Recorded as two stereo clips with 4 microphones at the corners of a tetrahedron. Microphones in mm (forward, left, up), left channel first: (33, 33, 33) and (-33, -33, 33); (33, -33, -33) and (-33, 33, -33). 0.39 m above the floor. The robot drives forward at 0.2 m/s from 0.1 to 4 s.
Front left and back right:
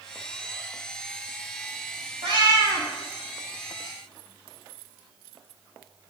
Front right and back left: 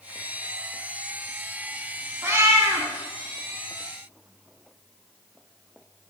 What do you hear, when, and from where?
2.2 s a cat meowing: 160° right, 1.4 m